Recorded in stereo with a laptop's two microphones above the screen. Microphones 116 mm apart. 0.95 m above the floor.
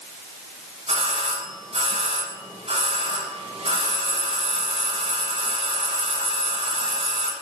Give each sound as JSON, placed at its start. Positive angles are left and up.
{"t": 0.9, "sound": "a doorbell", "side_deg": -75, "distance_m": 5.5}